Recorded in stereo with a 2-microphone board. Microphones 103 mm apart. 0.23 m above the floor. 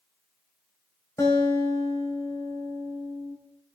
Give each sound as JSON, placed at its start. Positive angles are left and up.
{"t": 1.2, "sound": "a guitar", "side_deg": 30, "distance_m": 4.0}